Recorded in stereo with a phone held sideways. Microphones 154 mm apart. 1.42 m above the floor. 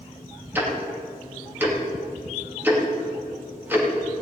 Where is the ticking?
10° right (ahead or behind), 2.5 m.